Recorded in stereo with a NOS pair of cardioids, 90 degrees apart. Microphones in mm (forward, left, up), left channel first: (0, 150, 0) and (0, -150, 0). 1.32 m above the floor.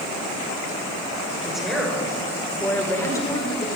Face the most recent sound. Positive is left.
turn(degrees=15)